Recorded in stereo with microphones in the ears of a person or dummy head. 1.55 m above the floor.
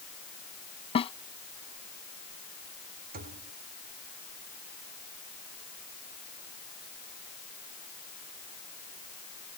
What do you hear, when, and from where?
0.9 s a snare drum: 35° left (ahead or behind)
3.1 s a thud: 45° right (ahead or behind)